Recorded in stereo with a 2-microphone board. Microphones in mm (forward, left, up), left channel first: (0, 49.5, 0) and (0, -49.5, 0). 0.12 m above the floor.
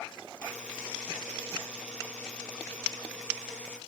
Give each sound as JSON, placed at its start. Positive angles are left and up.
{"t": 0.4, "sound": "a buzzer", "side_deg": 10, "distance_m": 3.5}